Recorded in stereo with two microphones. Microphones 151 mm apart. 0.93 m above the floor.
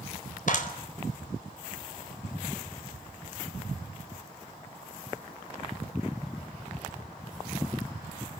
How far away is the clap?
About 4.5 m.